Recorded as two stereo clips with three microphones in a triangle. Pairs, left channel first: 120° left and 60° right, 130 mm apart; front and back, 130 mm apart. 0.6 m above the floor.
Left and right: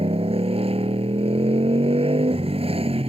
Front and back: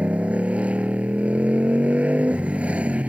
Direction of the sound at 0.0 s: 100° right.